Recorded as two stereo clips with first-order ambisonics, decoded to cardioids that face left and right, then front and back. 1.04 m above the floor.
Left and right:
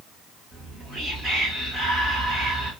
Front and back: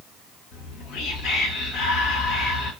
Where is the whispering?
30° right, 3.5 m.